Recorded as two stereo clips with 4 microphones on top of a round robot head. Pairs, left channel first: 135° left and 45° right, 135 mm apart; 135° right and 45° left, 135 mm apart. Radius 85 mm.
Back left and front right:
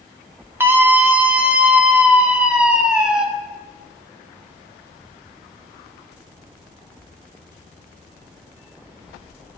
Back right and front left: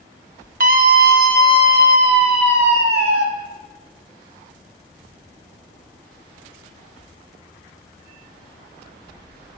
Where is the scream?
30° left, 0.9 m; by 3.2 s 40° left, 2.5 m.